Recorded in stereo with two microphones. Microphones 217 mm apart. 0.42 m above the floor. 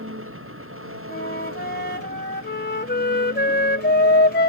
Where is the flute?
50° left (ahead or behind).